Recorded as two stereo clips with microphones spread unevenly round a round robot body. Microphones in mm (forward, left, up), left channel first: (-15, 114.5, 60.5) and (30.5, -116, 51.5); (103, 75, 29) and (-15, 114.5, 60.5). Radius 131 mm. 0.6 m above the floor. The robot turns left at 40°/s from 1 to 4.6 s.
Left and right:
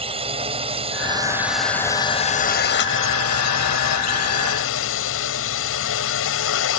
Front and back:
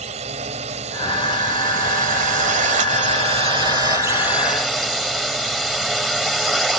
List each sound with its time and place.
0.0 s a drone: 145° right; by 6.8 s 70° left